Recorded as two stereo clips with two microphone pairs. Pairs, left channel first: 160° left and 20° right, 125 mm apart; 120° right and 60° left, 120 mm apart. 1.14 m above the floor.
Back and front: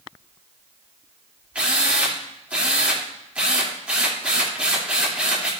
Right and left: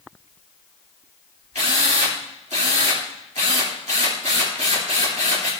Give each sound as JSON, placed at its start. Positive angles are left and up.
{"t": 1.6, "sound": "a drill", "azimuth_deg": 60, "distance_m": 3.0}